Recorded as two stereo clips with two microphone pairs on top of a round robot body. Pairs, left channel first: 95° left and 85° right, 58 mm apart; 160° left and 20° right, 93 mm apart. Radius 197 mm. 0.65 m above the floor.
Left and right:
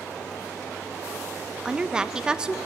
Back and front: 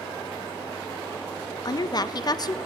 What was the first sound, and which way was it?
A woman speaking, 165° right.